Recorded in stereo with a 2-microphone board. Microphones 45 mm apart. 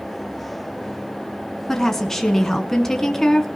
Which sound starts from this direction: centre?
A woman speaking, at 1.7 s.